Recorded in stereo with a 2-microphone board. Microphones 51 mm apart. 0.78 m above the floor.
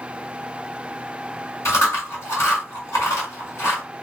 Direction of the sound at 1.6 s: 65° left (ahead or behind).